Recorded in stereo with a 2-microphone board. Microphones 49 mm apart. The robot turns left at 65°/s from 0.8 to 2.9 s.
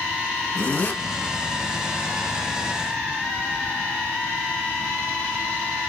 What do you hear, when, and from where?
0.6 s a zipper: 40° left (ahead or behind), 1.1 m; by 1.0 s 45° left (ahead or behind), 1.1 m